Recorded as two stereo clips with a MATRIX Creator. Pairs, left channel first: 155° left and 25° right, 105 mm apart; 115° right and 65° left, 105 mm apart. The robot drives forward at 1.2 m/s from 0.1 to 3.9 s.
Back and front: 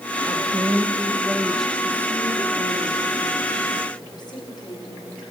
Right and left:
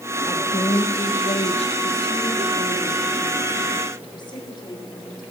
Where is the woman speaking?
65° right, 1.8 m; by 5.2 s 155° right, 4 m.